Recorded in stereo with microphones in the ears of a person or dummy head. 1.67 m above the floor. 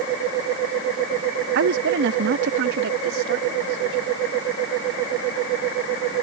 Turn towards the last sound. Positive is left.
turn(degrees=-65)  # may be behind; listen again after turning